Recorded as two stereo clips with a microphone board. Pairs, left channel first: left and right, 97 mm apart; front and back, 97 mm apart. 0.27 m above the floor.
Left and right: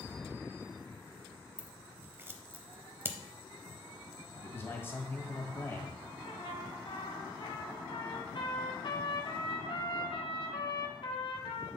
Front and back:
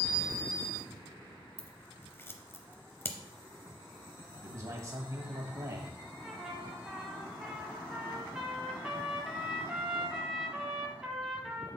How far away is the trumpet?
About 1.1 m.